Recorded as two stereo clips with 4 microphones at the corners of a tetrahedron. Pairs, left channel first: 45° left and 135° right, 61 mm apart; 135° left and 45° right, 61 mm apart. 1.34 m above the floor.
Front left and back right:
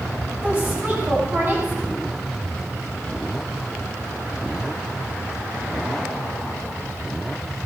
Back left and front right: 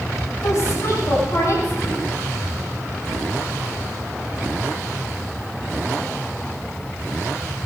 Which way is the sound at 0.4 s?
170° left.